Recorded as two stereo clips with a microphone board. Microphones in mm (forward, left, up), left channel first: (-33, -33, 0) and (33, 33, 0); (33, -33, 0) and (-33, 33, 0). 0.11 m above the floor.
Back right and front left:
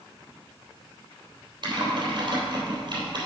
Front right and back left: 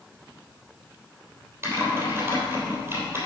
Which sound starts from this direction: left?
Typing on a keyboard, at 1.6 s.